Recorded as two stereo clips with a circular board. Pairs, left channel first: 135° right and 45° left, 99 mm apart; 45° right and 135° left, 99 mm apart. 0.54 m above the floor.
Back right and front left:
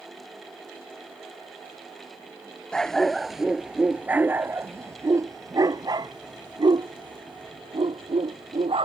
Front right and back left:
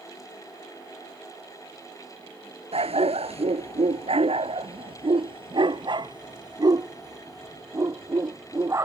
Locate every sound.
2.7 s a dog barking: 145° left; by 8.8 s 75° left